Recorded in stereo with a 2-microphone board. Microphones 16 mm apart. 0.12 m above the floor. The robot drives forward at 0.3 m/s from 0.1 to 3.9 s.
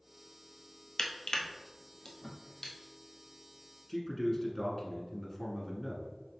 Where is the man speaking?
25° left (ahead or behind), 1.1 m.